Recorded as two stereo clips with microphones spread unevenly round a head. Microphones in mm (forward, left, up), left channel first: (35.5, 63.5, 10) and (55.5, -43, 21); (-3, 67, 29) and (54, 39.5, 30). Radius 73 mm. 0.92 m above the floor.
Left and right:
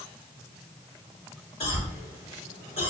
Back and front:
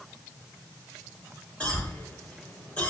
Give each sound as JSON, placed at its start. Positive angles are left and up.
{"t": 1.6, "sound": "a cough", "azimuth_deg": 80, "distance_m": 4.5}